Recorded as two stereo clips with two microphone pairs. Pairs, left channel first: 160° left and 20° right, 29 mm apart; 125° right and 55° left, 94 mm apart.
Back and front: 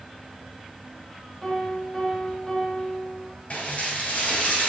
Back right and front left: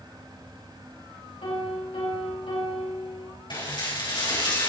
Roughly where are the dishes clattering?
Behind.